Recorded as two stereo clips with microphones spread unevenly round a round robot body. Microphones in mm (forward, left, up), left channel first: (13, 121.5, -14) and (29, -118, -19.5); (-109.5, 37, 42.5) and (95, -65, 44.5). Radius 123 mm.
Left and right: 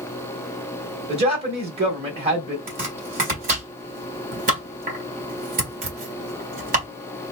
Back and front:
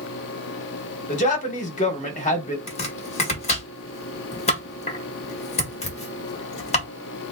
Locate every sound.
1.1 s a man speaking: 150° right, 1.7 m
2.7 s chopping: 145° right, 1.7 m